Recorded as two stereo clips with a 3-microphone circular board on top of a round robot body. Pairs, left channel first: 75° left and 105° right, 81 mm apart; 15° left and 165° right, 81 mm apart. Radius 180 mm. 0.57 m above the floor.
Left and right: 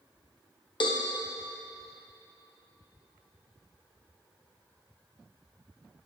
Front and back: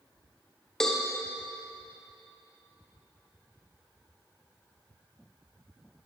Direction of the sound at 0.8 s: 100° left.